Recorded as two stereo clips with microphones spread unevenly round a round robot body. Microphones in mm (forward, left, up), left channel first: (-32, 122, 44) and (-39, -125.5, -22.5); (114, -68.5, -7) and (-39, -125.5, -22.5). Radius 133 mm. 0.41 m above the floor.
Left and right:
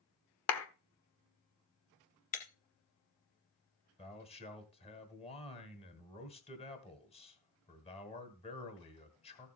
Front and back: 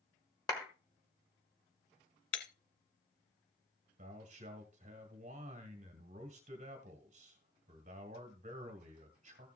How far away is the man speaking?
About 1.9 m.